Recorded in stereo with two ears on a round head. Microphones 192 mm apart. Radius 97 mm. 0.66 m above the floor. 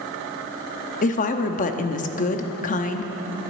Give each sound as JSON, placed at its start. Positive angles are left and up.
{"t": 1.0, "sound": "a woman speaking", "side_deg": 35, "distance_m": 0.8}